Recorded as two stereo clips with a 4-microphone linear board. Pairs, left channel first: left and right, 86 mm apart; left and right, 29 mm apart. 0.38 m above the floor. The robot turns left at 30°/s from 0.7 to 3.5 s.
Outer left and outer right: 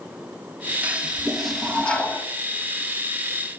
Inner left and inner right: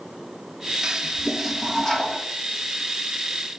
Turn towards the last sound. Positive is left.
turn(degrees=115)